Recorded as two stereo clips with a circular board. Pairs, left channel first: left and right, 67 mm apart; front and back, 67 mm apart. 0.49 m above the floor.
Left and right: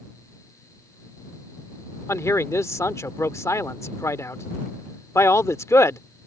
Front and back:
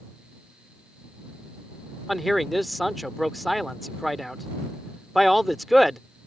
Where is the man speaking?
90° left.